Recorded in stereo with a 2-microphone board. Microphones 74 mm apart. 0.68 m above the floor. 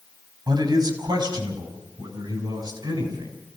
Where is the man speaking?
80° right, 5 m.